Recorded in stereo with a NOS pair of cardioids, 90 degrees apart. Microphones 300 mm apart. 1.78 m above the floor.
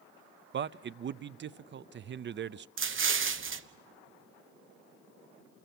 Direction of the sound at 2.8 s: 40° right.